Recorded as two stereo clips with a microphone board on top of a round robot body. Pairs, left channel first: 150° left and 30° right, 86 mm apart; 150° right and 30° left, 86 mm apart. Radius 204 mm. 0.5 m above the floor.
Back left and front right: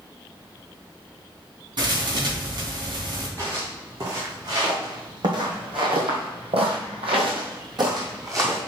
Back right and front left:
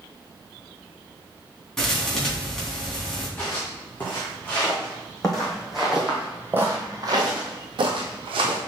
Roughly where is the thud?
Ahead right.